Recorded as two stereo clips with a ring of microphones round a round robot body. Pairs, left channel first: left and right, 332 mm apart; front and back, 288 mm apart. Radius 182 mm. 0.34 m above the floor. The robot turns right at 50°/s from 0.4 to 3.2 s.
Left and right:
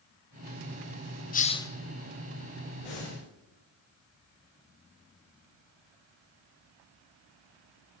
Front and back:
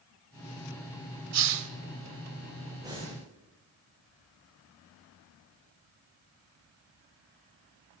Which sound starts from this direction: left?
Breathing, at 2.8 s.